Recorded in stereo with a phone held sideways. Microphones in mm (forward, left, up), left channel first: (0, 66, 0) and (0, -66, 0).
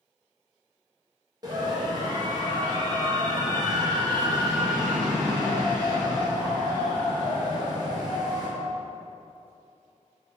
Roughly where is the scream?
Right.